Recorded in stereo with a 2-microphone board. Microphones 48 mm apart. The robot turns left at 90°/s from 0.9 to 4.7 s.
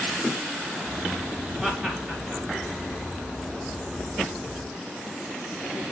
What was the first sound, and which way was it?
Laughter, 15° right (ahead or behind).